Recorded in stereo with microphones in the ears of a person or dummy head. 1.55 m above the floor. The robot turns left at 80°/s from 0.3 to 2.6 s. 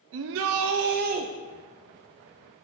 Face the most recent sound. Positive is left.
turn(degrees=105)